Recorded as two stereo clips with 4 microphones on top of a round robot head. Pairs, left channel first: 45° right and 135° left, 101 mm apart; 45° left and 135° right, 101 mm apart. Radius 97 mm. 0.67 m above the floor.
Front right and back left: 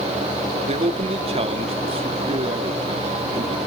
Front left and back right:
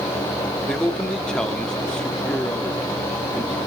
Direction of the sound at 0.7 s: 130° left.